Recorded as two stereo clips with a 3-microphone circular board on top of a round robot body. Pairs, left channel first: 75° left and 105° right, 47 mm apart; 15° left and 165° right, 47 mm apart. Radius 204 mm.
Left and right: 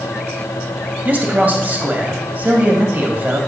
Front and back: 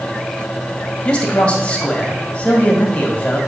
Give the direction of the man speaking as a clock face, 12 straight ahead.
2 o'clock.